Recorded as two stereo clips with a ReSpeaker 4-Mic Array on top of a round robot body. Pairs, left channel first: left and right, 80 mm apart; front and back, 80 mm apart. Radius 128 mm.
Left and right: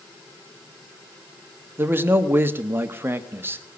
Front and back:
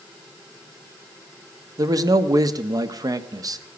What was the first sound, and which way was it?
A man speaking, 150° right.